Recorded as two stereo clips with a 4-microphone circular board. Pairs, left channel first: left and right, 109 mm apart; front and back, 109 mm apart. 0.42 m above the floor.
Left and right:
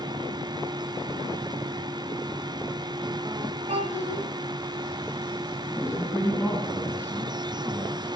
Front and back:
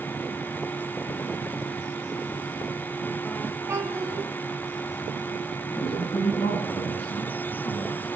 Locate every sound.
3.7 s a child speaking: 115° right, 2.5 m
5.8 s a man speaking: 10° right, 4.5 m